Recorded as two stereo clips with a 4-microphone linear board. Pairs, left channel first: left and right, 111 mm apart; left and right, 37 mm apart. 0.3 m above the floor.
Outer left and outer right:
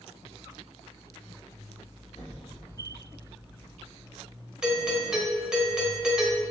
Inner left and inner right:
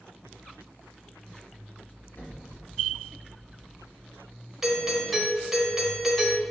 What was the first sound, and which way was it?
An explosion, 50° left (ahead or behind).